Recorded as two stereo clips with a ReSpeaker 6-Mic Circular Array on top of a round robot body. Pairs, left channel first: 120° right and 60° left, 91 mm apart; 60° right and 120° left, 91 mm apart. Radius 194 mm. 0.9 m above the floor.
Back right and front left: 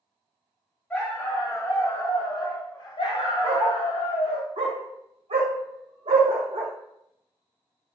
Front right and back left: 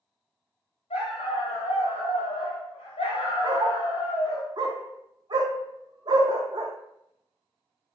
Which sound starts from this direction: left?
A dog barking, at 3.4 s.